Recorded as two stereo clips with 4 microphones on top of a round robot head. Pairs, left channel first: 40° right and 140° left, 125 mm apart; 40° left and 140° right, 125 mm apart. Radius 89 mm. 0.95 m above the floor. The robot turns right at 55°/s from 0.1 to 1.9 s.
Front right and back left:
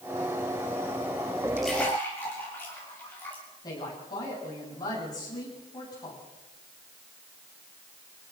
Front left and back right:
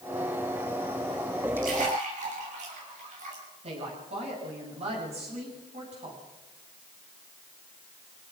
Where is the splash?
135° right, 7 m; by 3.4 s 115° right, 7 m.